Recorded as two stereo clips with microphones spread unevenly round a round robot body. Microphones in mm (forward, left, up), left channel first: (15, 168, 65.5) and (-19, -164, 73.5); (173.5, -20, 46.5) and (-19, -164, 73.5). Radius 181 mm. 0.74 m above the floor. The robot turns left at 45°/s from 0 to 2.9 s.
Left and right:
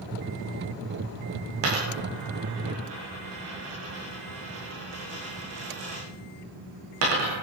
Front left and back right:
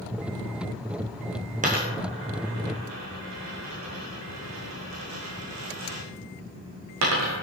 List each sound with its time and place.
1.6 s a dropped coin: 85° right, 8.5 m; by 7.4 s 140° right, 8.5 m